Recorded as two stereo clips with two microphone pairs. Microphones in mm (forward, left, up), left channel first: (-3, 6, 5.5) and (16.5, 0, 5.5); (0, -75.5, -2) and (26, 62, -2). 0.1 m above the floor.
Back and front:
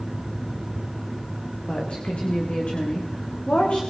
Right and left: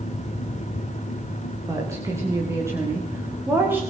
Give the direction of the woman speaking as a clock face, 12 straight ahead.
7 o'clock.